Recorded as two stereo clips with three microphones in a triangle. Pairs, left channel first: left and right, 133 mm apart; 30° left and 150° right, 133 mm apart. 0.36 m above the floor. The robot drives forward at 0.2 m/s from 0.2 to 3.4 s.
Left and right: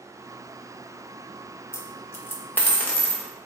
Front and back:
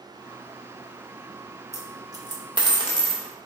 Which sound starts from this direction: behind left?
A dropped coin, at 1.7 s.